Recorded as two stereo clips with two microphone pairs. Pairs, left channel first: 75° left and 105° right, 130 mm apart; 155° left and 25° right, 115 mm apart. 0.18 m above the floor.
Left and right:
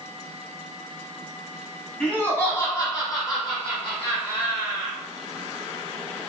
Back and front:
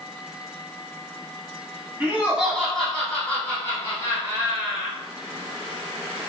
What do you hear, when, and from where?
2.0 s laughter: 5° left, 1.2 m; by 5.0 s 110° left, 2 m